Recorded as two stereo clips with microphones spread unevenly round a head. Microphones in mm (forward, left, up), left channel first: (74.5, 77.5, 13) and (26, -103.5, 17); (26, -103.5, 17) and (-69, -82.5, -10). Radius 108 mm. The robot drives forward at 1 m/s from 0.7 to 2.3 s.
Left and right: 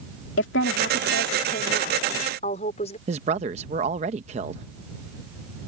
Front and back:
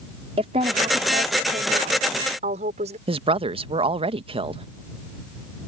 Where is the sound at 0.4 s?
115° left; by 3.0 s 140° left.